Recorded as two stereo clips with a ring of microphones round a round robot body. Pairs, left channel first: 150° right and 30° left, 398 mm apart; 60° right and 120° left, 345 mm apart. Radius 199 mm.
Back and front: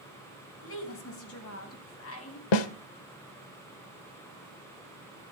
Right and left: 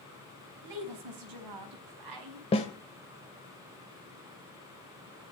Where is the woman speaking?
155° left, 3.5 m.